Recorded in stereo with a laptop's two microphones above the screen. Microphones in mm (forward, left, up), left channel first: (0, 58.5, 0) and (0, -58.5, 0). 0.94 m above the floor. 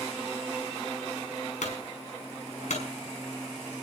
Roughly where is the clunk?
Left.